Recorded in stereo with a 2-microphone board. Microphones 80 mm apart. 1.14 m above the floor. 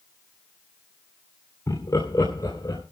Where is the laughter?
45° left (ahead or behind), 3 m; by 2.8 s 50° left (ahead or behind), 4 m.